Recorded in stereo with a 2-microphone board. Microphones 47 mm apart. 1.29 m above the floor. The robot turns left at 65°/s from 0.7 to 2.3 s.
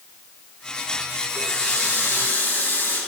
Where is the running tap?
105° left, 8 m; by 3.0 s 40° left, 8 m.